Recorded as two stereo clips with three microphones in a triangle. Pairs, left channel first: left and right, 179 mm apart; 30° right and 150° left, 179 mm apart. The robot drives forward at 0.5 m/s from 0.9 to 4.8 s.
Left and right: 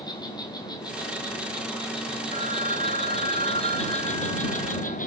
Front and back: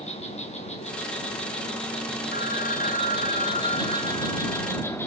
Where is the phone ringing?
50° right, 2 m; by 5.0 s 95° right, 1.7 m.